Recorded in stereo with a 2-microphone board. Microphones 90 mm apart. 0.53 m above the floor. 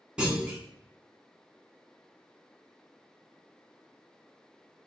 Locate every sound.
0.2 s a clunk: 10° right (ahead or behind), 0.8 m